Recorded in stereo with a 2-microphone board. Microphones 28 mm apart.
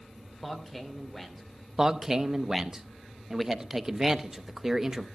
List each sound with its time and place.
0.4 s a man speaking: 5° left (ahead or behind), 2.5 m
1.8 s a man speaking: 20° right (ahead or behind), 0.7 m